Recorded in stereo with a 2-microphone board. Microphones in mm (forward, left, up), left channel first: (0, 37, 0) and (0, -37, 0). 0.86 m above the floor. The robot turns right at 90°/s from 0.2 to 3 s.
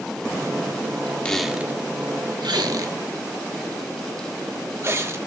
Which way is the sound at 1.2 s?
15° left (ahead or behind).